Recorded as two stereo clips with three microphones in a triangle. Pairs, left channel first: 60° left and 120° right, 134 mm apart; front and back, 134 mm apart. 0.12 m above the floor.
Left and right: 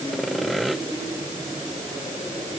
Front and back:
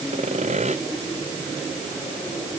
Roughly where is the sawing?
Behind left.